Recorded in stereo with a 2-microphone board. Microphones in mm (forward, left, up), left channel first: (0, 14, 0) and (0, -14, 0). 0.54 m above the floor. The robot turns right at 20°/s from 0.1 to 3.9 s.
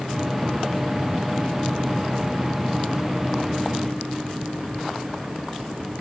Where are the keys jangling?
I don't hear keys jangling.